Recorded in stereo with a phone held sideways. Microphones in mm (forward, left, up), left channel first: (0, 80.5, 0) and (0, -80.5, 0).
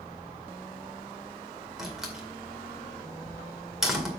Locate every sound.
1.8 s a door slam: 5° right (ahead or behind), 2 m